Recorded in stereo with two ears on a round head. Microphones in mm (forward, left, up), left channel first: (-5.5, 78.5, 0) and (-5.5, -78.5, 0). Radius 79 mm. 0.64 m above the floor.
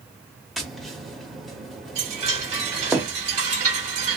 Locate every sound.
0.6 s tapping: centre (ahead or behind), 0.8 m
1.9 s a chime: 40° right (ahead or behind), 1.4 m